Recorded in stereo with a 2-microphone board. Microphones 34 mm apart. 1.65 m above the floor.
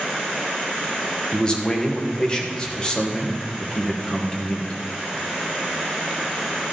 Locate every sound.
1.3 s a man speaking: 25° left (ahead or behind), 1.5 m